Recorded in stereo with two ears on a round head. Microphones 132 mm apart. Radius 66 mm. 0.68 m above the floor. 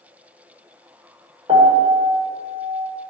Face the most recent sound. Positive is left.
turn(degrees=-35)  # may be behind; listen again after turning